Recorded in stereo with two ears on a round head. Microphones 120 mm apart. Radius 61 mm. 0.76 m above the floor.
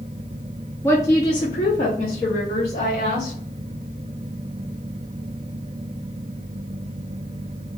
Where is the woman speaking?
15° left (ahead or behind), 0.6 m; by 3.3 s 50° left (ahead or behind), 1.9 m.